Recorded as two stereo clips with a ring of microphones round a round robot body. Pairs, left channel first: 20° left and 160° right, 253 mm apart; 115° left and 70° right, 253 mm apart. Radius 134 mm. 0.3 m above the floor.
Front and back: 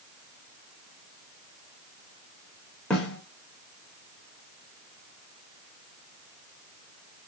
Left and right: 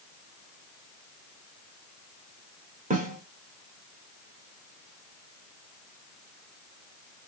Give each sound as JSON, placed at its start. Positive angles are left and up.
{"t": 2.9, "sound": "a snare drum", "azimuth_deg": -60, "distance_m": 1.0}